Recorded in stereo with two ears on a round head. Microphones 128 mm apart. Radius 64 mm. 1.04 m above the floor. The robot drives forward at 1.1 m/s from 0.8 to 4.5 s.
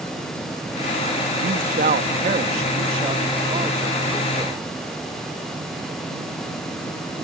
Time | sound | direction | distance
1.4 | a man speaking | 70° right (ahead or behind) | ?